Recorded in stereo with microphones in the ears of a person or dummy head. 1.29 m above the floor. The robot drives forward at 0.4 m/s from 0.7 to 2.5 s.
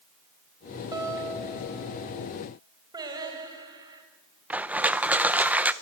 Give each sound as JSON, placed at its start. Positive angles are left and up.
{"t": 0.9, "sound": "a guitar", "side_deg": -15, "distance_m": 3.5}
{"t": 2.9, "sound": "singing", "side_deg": -20, "distance_m": 4.0}
{"t": 4.5, "sound": "crushing", "side_deg": -5, "distance_m": 0.6}